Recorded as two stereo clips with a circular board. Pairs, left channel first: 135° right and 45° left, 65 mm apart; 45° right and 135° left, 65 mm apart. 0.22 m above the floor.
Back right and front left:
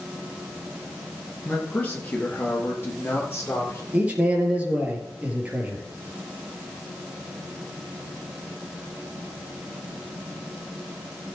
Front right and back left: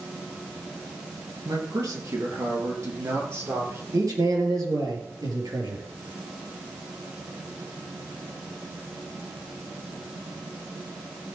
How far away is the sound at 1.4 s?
About 3.5 m.